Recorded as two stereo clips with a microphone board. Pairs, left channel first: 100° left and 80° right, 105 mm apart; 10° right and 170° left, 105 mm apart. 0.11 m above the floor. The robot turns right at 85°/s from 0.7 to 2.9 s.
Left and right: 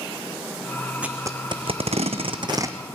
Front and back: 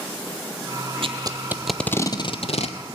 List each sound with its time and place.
1.0 s tape being pulled: 160° right, 0.7 m; by 3.0 s straight ahead, 0.7 m